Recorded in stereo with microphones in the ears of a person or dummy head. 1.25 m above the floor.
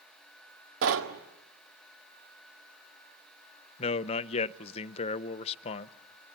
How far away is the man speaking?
About 0.6 m.